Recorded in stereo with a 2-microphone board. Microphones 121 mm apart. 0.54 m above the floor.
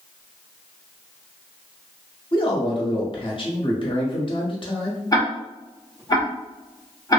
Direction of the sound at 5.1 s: 30° left (ahead or behind).